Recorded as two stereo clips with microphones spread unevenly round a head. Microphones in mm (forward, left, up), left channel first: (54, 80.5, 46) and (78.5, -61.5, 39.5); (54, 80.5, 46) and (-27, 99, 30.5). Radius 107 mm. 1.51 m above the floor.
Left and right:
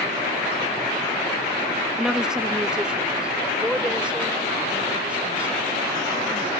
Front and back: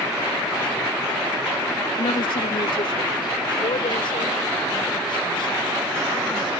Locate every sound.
2.0 s a woman speaking: 5° left; by 6.5 s straight ahead